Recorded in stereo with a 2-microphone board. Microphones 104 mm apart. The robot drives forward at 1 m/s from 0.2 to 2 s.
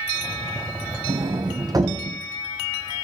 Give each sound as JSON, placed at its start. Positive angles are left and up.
{"t": 1.1, "sound": "a sliding door", "side_deg": -60, "distance_m": 0.8}